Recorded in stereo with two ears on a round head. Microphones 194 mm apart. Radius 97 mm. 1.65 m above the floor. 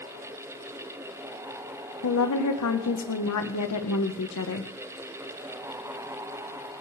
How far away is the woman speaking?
About 1.6 m.